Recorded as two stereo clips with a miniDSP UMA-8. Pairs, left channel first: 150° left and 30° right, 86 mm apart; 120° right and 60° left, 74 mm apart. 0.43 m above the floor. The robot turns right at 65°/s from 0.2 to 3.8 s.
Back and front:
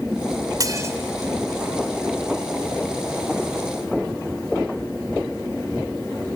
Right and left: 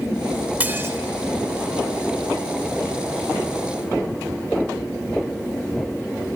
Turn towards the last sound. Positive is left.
turn(degrees=-155)